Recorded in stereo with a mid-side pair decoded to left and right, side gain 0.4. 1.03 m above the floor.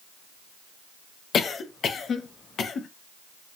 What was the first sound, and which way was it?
A cough, 60° left.